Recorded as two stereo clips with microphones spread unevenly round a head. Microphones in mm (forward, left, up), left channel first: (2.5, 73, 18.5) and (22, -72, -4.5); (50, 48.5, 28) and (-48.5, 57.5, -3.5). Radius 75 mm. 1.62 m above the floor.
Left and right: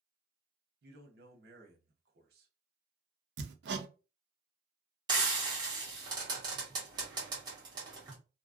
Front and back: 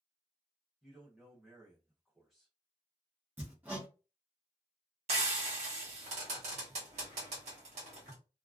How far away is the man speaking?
About 0.9 m.